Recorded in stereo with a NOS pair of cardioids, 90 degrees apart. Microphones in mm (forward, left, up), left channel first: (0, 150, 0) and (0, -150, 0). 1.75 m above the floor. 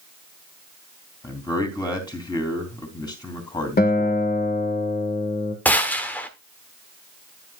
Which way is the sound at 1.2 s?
15° left.